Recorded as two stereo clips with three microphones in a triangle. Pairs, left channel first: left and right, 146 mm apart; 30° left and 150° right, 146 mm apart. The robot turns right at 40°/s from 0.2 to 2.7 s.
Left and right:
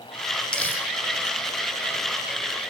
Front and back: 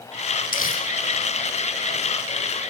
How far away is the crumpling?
About 5.5 m.